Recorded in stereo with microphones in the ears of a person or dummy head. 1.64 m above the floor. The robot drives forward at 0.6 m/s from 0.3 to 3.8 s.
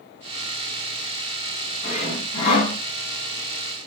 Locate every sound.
1.8 s sawing: 45° left (ahead or behind), 4.5 m